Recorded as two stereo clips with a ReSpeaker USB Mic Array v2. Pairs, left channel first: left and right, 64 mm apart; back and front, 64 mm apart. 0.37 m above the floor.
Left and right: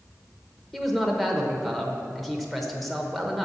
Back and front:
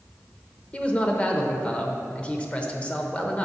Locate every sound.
0.7 s a man speaking: 175° left, 0.8 m